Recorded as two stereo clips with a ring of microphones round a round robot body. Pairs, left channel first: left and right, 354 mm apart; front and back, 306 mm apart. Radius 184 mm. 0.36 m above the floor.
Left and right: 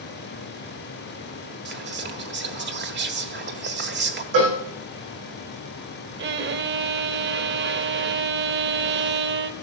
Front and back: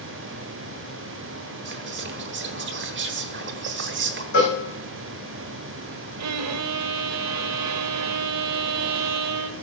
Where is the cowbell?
65° right, 6 m.